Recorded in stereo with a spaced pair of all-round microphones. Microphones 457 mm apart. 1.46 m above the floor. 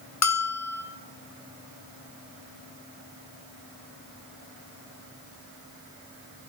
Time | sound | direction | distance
0.2 | a bell | 35° left (ahead or behind) | 0.6 m